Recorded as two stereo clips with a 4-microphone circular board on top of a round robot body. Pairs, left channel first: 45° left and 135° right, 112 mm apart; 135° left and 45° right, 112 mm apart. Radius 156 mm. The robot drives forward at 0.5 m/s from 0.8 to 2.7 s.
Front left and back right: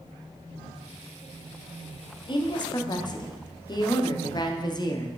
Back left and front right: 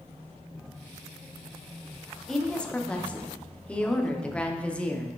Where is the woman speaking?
50° left, 1.4 m; by 5.2 s 60° left, 1.3 m.